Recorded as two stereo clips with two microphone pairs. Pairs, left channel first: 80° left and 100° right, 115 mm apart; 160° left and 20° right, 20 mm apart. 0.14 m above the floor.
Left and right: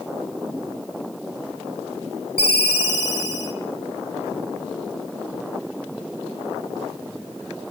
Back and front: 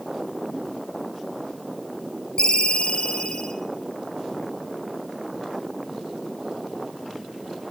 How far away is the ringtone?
About 2.5 m.